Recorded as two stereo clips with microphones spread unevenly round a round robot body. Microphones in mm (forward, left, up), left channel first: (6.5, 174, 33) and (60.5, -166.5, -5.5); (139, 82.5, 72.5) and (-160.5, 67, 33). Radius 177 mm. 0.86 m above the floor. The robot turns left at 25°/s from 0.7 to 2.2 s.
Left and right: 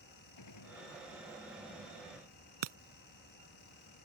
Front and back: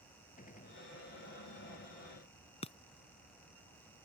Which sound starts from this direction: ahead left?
A gunshot, at 0.4 s.